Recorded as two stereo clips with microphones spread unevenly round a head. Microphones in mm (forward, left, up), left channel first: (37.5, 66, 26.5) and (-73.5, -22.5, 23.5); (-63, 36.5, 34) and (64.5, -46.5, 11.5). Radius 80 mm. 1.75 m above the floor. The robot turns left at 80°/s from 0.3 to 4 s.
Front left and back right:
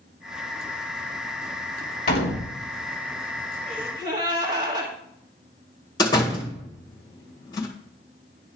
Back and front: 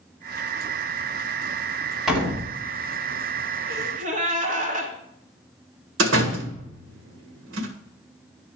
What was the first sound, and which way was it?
A door slam, 60° left.